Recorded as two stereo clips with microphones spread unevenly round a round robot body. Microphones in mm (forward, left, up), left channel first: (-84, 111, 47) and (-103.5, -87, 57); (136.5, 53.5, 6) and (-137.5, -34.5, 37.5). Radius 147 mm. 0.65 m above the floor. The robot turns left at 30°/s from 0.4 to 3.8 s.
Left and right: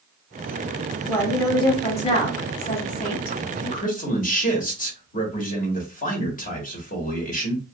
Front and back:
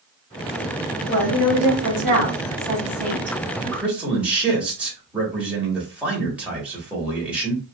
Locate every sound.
1.1 s a woman speaking: 165° left, 2 m; by 3.4 s 95° left, 2 m
3.6 s a man speaking: 115° left, 1.4 m; by 7.6 s 105° left, 1.4 m